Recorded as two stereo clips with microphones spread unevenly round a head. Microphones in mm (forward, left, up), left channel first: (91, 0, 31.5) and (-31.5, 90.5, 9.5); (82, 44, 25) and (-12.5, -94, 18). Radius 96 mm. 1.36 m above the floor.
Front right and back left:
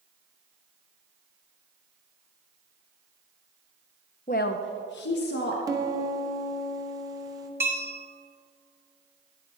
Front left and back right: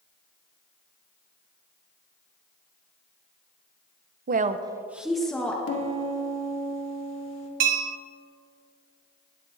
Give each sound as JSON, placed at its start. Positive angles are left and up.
{"t": 4.3, "sound": "a woman speaking", "azimuth_deg": -95, "distance_m": 0.6}
{"t": 5.7, "sound": "a piano", "azimuth_deg": 75, "distance_m": 1.8}
{"t": 7.6, "sound": "a bell", "azimuth_deg": -135, "distance_m": 0.8}